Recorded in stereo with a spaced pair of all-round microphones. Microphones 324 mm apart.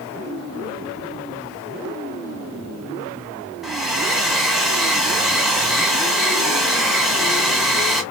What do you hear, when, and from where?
3.6 s a hair dryer: centre (ahead or behind), 1.2 m